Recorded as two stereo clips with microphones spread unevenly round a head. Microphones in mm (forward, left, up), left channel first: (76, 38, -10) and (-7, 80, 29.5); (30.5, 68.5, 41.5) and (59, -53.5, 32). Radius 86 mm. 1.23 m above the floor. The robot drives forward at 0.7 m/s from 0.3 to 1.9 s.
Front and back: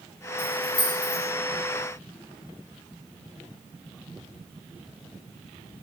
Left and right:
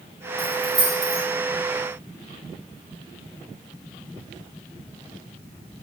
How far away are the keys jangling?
About 3.5 m.